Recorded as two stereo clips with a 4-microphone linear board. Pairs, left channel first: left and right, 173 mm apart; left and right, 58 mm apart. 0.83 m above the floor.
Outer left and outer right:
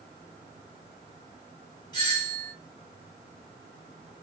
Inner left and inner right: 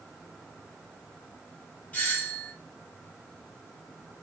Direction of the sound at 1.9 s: 25° left (ahead or behind).